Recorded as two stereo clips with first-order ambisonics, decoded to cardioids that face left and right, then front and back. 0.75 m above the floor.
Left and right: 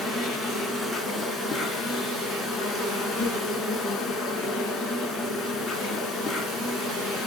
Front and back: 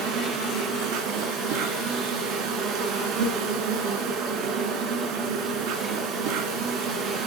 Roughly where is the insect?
Behind.